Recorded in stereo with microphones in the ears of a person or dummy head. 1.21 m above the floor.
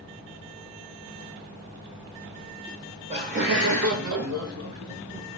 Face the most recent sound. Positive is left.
turn(degrees=-55)  # may be behind; listen again after turning